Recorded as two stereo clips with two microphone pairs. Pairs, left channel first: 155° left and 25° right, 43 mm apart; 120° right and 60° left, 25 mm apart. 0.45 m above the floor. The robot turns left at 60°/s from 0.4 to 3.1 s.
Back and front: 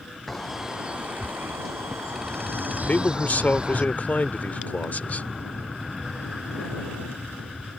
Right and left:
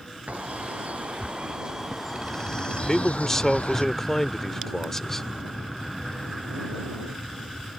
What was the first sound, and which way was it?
A bird, 70° left.